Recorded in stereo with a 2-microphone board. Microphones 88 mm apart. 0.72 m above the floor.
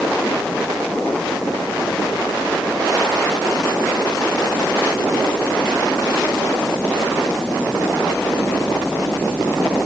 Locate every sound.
Only background noise.